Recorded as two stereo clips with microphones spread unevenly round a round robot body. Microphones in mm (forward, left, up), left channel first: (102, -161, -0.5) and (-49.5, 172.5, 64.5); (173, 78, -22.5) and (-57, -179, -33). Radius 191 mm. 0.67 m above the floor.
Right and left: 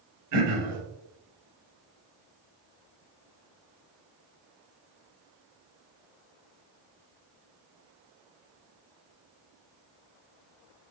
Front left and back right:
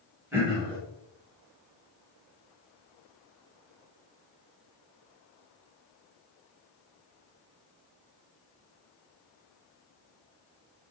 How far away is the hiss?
I don't hear a hiss.